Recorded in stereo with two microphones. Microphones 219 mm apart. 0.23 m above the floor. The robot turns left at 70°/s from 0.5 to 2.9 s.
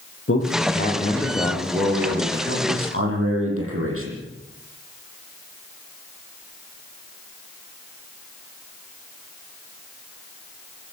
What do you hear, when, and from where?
0.3 s a man speaking: 75° left, 9.5 m; by 4.2 s 95° right, 9.5 m